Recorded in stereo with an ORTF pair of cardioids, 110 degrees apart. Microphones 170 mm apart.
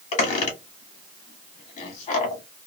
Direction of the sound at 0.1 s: 45° left.